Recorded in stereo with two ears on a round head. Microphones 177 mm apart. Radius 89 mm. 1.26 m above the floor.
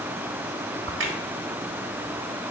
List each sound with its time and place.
0.9 s a crack: 70° right (ahead or behind), 1.5 m